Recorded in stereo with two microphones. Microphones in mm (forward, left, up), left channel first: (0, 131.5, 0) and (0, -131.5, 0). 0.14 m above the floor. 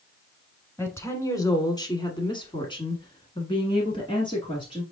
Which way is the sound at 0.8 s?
10° left (ahead or behind).